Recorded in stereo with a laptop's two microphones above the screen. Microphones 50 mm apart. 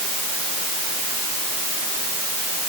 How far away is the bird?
I don't hear a bird.